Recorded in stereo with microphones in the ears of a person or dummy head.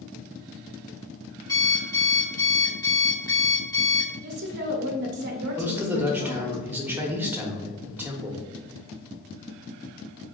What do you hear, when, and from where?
1.5 s an alarm clock: 15° left (ahead or behind), 0.8 m
4.2 s a woman speaking: 50° right (ahead or behind), 0.6 m
5.6 s a man speaking: 15° right (ahead or behind), 0.8 m